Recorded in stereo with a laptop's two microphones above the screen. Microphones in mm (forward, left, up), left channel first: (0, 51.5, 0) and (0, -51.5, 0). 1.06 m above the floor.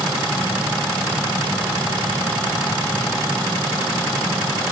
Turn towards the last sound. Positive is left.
No sound to turn to.